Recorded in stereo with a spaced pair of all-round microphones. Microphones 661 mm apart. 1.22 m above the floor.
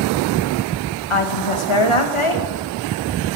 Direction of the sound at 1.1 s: 50° left (ahead or behind).